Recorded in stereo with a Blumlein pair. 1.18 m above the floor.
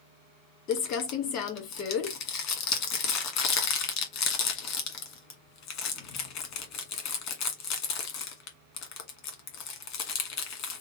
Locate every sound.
0.7 s crumpling: 40° left, 1.5 m